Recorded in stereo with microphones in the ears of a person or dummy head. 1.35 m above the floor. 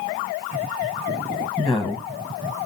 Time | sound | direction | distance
1.6 | a woman speaking | centre (ahead or behind) | 0.9 m